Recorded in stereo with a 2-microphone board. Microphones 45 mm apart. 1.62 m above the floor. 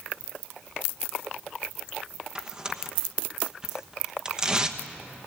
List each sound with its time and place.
2.4 s tearing paper: 15° right (ahead or behind), 1.1 m